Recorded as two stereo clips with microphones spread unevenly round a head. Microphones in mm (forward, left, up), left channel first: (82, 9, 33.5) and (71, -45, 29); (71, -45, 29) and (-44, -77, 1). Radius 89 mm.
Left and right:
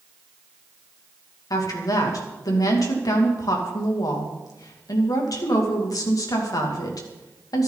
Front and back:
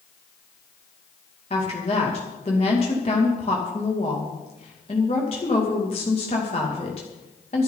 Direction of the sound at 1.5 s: 75° left.